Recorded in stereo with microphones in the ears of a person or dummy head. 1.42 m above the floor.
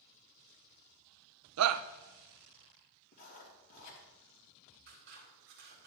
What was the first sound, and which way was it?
A shout, 80° right.